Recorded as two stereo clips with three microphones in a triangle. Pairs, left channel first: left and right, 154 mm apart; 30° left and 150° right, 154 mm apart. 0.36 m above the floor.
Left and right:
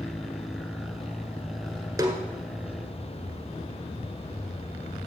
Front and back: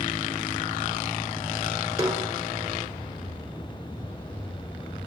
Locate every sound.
2.0 s a snare drum: 120° right, 1.5 m